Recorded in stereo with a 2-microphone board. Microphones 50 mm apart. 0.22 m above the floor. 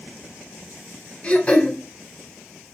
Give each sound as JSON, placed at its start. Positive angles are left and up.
{"t": 1.2, "sound": "throat clearing", "side_deg": 25, "distance_m": 0.7}